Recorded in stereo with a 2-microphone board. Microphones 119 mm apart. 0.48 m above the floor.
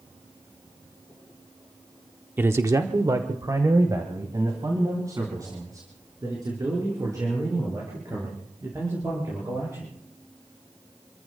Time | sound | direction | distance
2.4 | a man speaking | 15° right (ahead or behind) | 0.7 m